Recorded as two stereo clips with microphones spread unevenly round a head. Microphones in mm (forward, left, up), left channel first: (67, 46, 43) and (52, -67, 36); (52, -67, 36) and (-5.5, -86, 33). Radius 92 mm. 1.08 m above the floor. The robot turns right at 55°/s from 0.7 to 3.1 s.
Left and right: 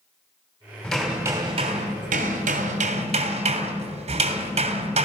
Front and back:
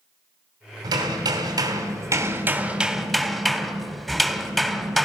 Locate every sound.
0.8 s hammering: 165° left, 3 m; by 5.1 s 70° right, 3 m